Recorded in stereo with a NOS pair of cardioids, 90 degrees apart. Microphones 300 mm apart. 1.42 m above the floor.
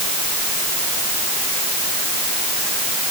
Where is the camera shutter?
No camera shutter in this recording.